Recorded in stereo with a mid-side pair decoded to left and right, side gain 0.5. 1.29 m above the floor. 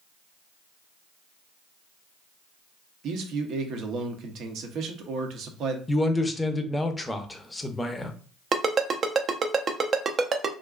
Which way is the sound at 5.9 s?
15° left.